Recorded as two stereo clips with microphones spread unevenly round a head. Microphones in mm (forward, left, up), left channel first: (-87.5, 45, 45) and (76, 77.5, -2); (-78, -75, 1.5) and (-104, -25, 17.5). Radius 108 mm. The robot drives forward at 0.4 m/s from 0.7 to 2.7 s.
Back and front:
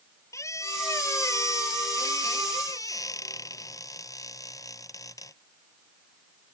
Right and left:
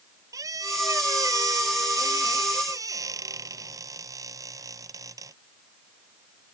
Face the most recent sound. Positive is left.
turn(degrees=120)